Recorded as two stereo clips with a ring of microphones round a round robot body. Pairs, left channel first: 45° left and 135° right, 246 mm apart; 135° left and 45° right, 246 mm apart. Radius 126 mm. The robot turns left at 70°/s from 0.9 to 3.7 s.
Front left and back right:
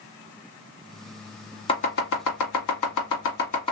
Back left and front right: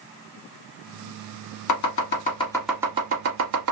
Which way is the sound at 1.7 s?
115° left.